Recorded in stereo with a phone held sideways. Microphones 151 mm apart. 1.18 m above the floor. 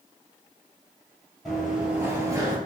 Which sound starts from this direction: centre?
Running footsteps, at 1.4 s.